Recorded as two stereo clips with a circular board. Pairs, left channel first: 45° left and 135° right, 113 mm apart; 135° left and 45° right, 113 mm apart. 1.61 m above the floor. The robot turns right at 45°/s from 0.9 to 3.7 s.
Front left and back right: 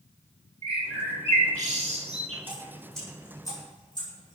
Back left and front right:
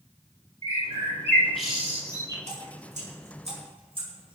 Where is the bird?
165° right, 5 m; by 2.4 s 100° right, 5 m.